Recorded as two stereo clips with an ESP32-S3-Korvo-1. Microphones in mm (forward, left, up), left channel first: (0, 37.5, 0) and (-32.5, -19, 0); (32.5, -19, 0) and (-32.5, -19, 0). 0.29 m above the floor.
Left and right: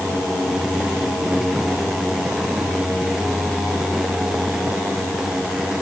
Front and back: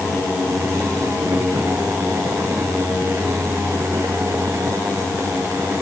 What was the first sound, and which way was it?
Only background noise.